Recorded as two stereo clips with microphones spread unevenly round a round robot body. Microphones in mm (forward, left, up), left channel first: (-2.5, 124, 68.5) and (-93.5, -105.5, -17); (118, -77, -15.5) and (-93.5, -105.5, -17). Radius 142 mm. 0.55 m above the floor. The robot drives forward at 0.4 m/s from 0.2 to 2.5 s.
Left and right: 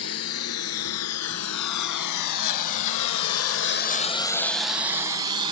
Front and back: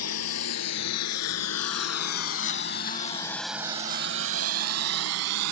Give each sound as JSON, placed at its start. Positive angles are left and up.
{"t": 0.0, "sound": "a lawn mower", "azimuth_deg": 25}